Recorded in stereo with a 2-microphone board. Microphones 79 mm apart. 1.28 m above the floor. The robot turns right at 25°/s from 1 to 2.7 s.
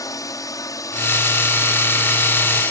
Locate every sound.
0.0 s a drone: 120° left; by 2.7 s 165° left